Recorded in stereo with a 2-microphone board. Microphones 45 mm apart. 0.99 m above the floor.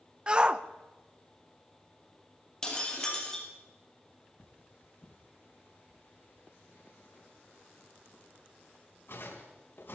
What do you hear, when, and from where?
0.3 s a shout: 25° right (ahead or behind), 0.7 m
2.6 s breaking glass: 15° left (ahead or behind), 4.5 m
4.4 s cutlery clinking: 55° left (ahead or behind), 4 m